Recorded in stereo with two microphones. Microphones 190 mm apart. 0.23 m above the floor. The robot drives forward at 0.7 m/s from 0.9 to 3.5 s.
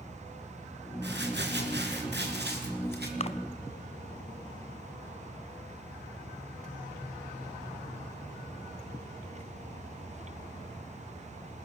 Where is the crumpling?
65° right (ahead or behind), 4 m; by 3.1 s 60° right (ahead or behind), 4 m.